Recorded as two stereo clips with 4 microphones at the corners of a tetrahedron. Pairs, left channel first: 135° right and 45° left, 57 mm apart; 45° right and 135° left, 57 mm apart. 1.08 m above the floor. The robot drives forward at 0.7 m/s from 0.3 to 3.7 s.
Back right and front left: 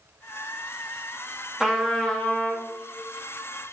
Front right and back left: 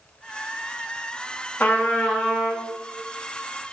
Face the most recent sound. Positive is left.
turn(degrees=-170)